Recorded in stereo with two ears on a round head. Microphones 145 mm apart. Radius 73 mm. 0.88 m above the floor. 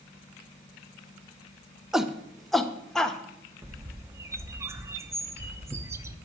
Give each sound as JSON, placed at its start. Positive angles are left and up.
{"t": 1.9, "sound": "a shout", "side_deg": -5, "distance_m": 0.8}
{"t": 3.6, "sound": "a bird", "side_deg": -15, "distance_m": 0.9}